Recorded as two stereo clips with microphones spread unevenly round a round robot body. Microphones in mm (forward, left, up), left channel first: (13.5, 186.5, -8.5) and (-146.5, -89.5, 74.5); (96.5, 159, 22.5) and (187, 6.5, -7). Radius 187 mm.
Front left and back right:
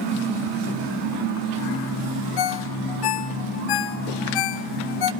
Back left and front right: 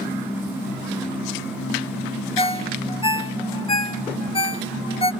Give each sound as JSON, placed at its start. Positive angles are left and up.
{"t": 2.4, "sound": "a ringtone", "azimuth_deg": 55, "distance_m": 1.1}